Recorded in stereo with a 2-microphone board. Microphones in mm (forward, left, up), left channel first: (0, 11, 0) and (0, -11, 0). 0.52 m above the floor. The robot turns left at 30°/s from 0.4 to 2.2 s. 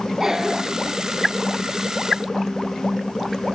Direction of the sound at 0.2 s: 25° right (ahead or behind).